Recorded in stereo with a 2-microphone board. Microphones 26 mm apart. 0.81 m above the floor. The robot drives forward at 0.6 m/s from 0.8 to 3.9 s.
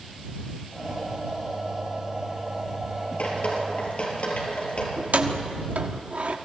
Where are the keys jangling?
70° right (ahead or behind), 1.2 m.